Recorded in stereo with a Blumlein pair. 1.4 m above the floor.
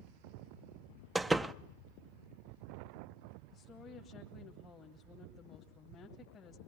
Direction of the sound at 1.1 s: 5° right.